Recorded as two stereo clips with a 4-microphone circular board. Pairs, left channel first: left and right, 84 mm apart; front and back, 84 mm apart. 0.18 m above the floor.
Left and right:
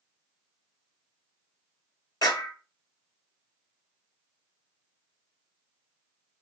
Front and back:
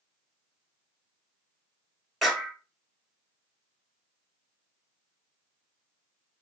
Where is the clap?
85° left, 2 m.